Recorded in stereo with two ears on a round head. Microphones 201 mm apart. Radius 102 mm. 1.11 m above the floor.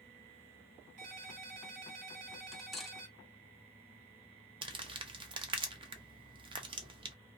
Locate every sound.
1.0 s a ringtone: 80° right, 1.8 m
2.5 s cutlery clinking: centre (ahead or behind), 0.5 m
4.6 s crumpling: 20° right (ahead or behind), 0.5 m